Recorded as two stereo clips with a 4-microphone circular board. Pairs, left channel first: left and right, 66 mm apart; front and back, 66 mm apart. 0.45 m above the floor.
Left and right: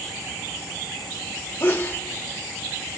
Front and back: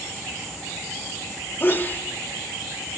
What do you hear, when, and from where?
1.6 s a sneeze: 40° left, 1.1 m